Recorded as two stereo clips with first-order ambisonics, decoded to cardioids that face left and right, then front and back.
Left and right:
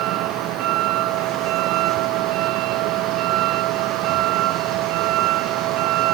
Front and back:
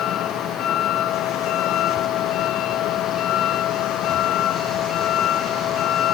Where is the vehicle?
50° right.